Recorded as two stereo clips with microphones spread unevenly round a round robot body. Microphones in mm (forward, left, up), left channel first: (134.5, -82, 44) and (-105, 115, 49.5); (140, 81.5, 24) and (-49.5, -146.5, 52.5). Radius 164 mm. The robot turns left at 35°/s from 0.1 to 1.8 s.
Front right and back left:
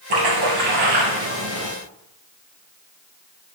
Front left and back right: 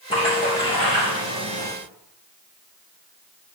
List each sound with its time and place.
0.1 s a splash: 125° left, 3 m; by 1.7 s 70° left, 3 m